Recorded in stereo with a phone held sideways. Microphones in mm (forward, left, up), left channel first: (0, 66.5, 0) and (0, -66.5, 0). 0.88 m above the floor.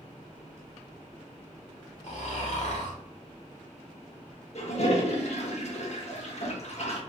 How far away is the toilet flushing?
About 0.7 m.